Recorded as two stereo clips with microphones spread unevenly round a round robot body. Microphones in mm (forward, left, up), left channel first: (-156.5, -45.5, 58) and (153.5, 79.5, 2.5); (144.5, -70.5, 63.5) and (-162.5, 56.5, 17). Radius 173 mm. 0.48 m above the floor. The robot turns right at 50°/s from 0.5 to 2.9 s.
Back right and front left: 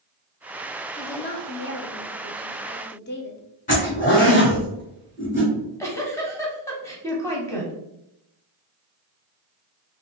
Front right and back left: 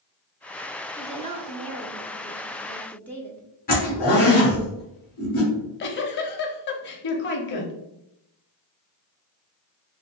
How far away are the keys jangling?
No keys jangling in this recording.